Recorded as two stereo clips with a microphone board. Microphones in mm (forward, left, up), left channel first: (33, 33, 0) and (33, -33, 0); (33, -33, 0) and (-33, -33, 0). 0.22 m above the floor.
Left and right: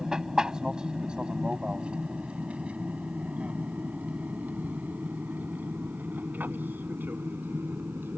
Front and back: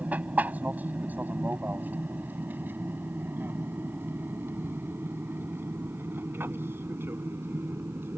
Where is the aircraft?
155° right; by 8.2 s 140° right.